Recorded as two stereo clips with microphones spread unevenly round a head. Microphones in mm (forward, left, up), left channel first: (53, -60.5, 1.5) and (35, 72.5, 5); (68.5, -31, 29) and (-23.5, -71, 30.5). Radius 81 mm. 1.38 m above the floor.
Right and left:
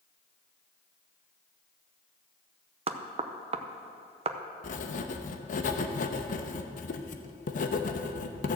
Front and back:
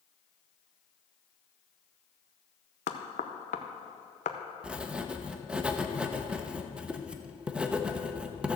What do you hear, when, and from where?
2.9 s knocking: 50° left, 0.8 m
4.6 s writing: 80° right, 0.8 m